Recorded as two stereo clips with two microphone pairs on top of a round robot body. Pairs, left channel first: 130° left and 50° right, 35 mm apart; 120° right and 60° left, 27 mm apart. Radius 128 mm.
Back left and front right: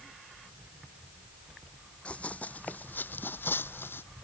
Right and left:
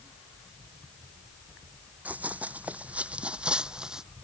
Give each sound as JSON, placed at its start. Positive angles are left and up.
{"t": 2.0, "sound": "running footsteps", "azimuth_deg": 75}